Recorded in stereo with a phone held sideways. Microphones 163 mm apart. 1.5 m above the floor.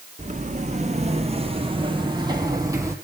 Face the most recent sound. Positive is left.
turn(degrees=-20)  # may be behind; listen again after turning